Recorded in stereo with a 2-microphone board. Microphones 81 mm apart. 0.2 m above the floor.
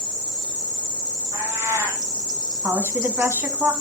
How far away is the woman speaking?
About 1.6 m.